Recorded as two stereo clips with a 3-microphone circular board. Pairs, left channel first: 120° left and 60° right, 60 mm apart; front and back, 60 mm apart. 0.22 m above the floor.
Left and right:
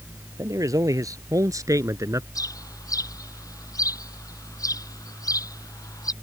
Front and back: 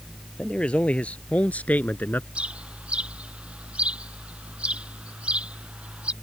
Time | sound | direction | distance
0.4 | a man speaking | 70° right | ?
2.4 | a bird | 110° left | ?